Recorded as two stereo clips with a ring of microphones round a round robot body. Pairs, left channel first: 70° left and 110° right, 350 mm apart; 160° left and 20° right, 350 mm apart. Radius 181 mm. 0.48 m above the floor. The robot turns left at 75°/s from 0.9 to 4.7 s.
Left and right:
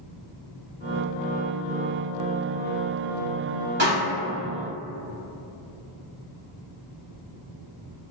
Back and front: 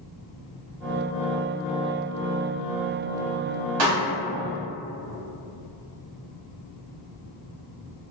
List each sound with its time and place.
3.8 s a pop: 50° right, 1.9 m; by 4.0 s 65° right, 1.9 m